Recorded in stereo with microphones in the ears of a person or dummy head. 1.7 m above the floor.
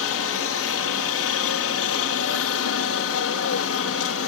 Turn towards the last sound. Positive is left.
turn(degrees=65)  # may be behind; listen again after turning